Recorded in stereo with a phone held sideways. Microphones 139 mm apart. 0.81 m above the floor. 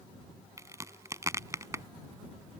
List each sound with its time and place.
0.6 s a crack: 20° right (ahead or behind)